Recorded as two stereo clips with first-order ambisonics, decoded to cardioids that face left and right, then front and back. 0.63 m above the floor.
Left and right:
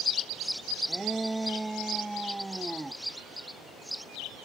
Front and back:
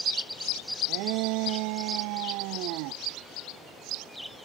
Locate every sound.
0.9 s a shout: 175° right